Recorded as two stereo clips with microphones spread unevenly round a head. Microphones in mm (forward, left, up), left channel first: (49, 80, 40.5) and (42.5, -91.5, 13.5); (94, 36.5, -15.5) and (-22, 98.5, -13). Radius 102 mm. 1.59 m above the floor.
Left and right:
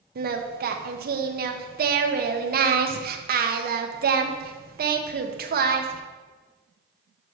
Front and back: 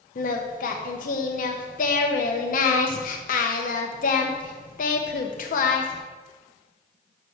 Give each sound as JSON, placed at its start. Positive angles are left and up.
{"t": 0.1, "sound": "singing", "azimuth_deg": -55, "distance_m": 0.9}